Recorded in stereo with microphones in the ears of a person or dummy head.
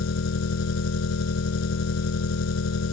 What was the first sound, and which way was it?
An engine running, 75° left (ahead or behind).